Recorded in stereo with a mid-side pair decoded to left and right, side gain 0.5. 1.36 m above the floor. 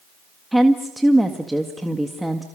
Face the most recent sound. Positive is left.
turn(degrees=-5)